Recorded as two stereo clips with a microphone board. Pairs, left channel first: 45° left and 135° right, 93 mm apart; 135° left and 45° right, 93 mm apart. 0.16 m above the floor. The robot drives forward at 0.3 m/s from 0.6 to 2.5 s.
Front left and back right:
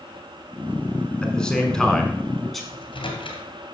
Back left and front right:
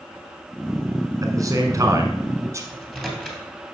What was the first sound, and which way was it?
A man speaking, 30° right.